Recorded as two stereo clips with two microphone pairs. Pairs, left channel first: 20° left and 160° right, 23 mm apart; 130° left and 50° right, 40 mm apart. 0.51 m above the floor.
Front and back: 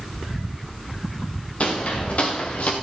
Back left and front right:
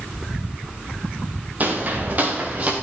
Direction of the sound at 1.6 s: 5° right.